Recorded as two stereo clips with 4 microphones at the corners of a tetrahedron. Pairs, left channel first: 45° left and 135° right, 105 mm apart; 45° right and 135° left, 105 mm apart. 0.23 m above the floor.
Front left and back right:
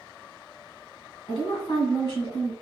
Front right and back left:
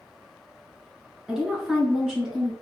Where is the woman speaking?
50° left, 2 m.